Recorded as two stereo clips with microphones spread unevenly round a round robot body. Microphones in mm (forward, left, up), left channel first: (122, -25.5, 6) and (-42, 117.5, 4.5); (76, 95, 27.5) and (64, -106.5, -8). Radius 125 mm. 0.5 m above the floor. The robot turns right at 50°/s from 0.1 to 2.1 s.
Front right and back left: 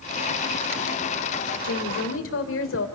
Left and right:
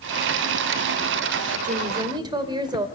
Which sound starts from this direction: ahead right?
A woman speaking, at 1.6 s.